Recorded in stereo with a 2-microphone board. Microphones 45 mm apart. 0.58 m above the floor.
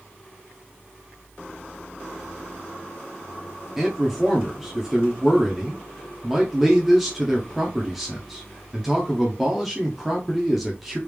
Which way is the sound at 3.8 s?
5° right (ahead or behind).